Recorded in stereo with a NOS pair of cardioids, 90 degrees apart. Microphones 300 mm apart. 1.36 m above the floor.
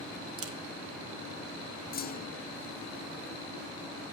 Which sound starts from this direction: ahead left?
A clunk, at 1.9 s.